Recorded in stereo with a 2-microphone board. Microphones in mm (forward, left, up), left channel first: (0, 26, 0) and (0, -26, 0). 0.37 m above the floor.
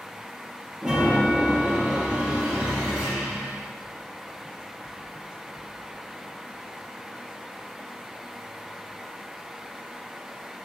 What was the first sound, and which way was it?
A chime, centre (ahead or behind).